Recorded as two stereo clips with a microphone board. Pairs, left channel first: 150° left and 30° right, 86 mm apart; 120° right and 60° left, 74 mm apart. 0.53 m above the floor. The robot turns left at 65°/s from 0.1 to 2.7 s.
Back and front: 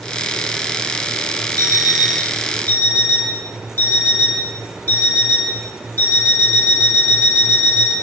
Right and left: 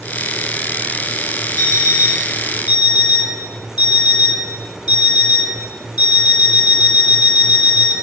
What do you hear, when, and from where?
1.6 s an alarm clock: 70° right, 1.4 m; by 7.9 s 145° right, 1.4 m